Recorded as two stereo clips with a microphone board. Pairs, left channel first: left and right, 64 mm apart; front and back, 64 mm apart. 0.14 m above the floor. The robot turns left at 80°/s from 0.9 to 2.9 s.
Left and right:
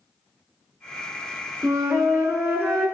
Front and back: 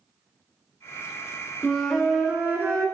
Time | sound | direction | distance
1.6 | a flute | 60° right | 0.8 m